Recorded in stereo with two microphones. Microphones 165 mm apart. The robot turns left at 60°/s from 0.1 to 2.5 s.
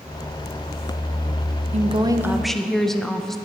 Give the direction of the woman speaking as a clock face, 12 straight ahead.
5 o'clock.